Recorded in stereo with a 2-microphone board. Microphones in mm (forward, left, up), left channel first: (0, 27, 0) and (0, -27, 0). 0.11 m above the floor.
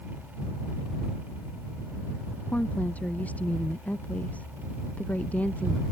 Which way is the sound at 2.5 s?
25° left (ahead or behind).